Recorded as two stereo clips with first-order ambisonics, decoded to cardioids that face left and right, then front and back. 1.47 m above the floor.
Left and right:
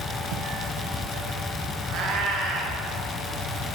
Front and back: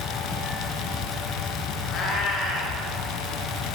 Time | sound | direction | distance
1.9 | a cat meowing | 55° right | 3.5 m